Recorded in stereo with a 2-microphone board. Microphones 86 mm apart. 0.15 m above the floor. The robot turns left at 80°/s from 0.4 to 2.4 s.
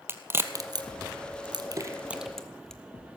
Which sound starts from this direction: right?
A crack, at 0.1 s.